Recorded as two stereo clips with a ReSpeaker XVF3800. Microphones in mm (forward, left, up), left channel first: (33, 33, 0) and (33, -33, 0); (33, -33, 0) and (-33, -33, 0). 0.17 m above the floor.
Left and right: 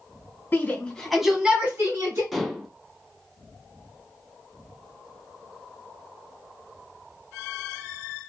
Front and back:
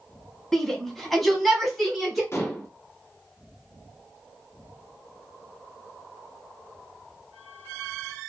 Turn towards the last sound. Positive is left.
turn(degrees=0)